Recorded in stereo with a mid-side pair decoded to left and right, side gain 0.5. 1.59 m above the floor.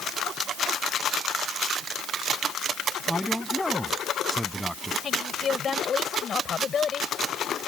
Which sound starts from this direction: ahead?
A man speaking, at 3.1 s.